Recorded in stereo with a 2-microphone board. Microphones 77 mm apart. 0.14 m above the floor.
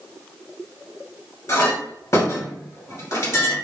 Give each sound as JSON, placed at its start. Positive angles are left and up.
{"t": 1.5, "sound": "a clink", "side_deg": 40, "distance_m": 1.8}